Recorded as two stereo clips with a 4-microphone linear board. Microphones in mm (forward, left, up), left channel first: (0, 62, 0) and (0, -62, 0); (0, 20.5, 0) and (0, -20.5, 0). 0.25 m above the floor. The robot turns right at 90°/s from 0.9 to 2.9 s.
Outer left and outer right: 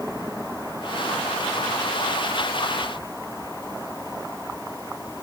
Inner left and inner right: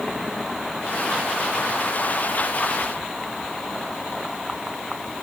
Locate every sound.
Only background noise.